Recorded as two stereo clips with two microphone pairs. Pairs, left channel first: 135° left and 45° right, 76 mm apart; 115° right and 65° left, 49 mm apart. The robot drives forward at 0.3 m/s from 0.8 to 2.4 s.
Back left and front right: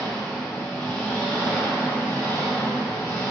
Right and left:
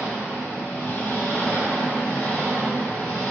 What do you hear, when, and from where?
0.0 s an engine running: 155° right, 1.0 m; by 3.3 s 165° right, 1.4 m